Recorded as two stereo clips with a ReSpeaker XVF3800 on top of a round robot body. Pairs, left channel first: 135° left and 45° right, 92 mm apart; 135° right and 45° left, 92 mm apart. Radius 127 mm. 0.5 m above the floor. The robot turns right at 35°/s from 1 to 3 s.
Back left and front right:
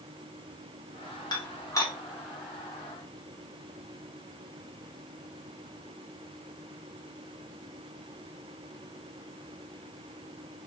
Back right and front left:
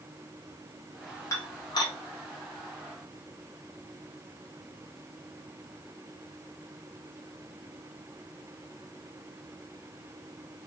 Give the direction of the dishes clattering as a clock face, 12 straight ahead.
6 o'clock.